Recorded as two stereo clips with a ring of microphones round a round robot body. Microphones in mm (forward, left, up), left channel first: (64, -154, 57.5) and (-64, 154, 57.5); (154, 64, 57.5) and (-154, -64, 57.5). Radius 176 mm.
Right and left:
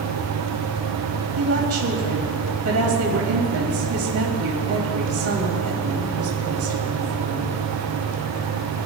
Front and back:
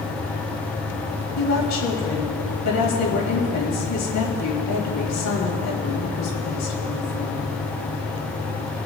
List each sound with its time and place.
1.4 s a woman speaking: 65° left, 3 m